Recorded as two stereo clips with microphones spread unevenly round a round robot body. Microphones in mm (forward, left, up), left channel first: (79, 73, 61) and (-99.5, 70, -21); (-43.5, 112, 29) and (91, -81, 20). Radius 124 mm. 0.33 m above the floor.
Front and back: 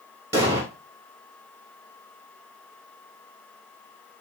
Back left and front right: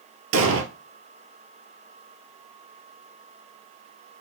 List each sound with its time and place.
0.3 s an explosion: 95° right, 1.2 m